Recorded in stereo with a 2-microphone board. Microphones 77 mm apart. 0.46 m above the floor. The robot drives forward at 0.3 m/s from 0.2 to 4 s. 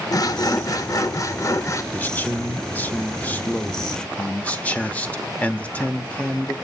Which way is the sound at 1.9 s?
20° left (ahead or behind).